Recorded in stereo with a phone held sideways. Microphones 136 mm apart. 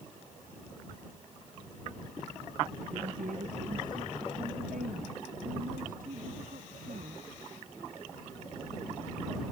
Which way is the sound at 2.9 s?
80° right.